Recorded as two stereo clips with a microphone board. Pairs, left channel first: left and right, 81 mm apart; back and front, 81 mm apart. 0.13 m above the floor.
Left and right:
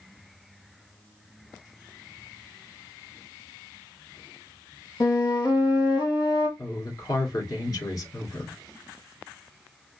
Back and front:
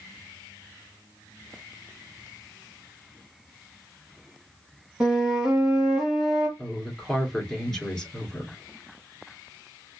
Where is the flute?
75° left, 2.5 m.